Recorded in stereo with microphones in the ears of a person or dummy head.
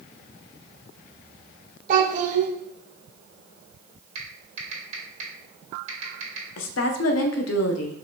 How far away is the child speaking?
About 1.8 m.